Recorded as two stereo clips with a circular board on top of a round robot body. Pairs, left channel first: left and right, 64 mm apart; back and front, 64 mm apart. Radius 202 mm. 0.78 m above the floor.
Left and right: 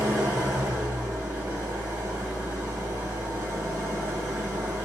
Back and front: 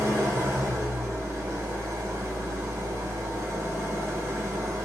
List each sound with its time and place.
0.0 s an engine running: 30° right, 1.2 m